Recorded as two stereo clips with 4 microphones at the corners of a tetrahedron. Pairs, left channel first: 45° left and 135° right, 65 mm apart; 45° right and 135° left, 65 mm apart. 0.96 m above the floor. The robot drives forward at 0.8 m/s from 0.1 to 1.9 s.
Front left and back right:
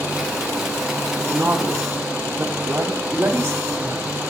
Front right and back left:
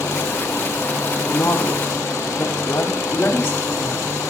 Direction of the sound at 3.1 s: 100° right.